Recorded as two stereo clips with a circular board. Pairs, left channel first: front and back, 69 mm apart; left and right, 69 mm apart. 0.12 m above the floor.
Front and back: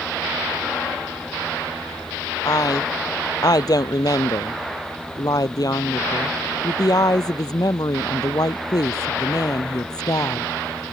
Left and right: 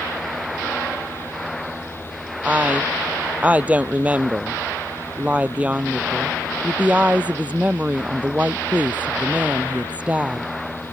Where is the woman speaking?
20° right.